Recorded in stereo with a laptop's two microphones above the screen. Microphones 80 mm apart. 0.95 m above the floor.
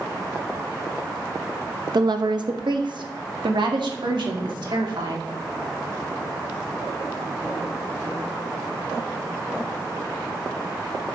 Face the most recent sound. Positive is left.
turn(degrees=-80)